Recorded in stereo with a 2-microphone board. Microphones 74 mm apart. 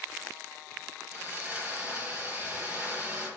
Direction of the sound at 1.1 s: 15° right (ahead or behind).